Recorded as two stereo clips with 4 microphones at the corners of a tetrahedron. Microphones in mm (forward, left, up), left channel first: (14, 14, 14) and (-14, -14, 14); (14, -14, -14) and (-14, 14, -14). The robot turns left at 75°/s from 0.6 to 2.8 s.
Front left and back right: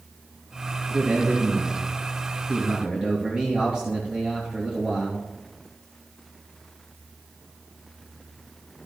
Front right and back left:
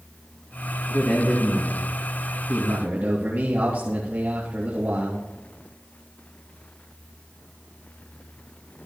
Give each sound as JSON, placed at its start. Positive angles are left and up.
{"t": 0.9, "sound": "a man speaking", "azimuth_deg": -60, "distance_m": 3.0}